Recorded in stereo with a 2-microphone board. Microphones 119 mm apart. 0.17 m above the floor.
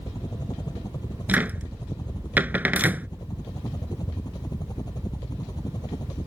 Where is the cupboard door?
15° right (ahead or behind).